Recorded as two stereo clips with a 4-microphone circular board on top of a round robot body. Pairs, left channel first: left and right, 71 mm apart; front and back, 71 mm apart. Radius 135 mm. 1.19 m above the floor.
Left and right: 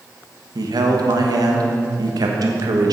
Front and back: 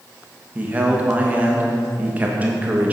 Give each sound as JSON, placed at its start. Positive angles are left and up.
{"t": 0.6, "sound": "a man speaking", "azimuth_deg": -110, "distance_m": 1.3}